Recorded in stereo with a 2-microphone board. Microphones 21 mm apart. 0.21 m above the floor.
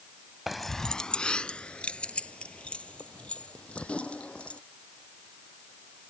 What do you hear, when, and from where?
0.5 s keys jangling: 15° right (ahead or behind); by 4.6 s 65° left (ahead or behind)